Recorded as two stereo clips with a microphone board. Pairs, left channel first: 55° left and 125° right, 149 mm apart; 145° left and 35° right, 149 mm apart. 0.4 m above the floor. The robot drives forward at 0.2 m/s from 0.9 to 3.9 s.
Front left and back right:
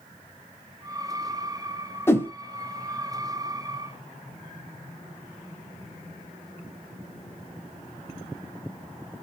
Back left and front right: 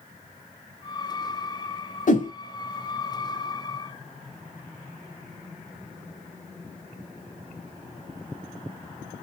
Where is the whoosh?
130° left, 0.6 m.